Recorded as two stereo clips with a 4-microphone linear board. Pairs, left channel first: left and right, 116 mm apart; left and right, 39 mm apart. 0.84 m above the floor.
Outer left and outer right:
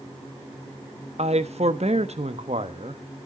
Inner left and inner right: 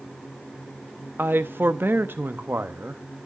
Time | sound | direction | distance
1.2 | a man speaking | 65° right (ahead or behind) | 0.8 m